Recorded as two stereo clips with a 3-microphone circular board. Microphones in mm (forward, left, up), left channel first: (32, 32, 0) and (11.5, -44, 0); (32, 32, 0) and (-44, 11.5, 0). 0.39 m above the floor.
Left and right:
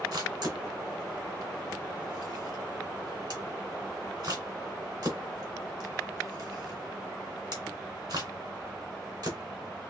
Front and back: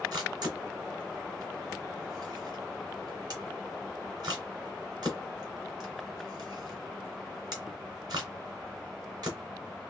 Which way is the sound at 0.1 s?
135° right.